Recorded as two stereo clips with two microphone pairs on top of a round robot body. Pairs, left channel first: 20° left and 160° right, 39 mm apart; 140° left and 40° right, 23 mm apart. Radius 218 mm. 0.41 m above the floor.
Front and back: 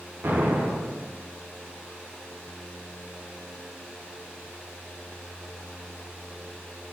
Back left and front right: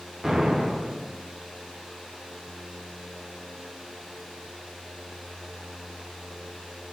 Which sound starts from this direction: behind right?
An explosion, at 0.2 s.